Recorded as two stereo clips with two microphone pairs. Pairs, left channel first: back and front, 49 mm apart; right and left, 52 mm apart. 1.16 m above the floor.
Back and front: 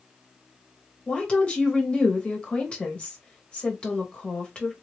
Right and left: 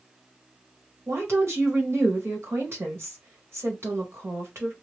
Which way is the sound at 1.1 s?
115° left.